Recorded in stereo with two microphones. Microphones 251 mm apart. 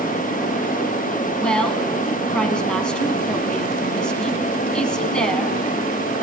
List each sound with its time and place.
1.4 s a woman speaking: 5° left (ahead or behind), 2 m